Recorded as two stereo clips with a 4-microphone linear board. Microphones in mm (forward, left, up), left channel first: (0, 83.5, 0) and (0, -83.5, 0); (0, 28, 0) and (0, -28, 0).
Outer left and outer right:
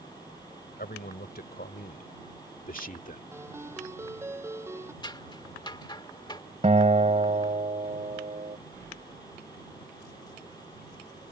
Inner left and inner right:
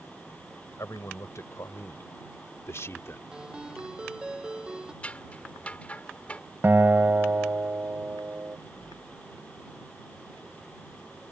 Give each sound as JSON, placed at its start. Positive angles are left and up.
{"t": 0.8, "sound": "a man speaking", "side_deg": 70}
{"t": 3.3, "sound": "a ringtone", "side_deg": -15}
{"t": 5.0, "sound": "scissors", "side_deg": 25}
{"t": 6.6, "sound": "a guitar", "side_deg": -45}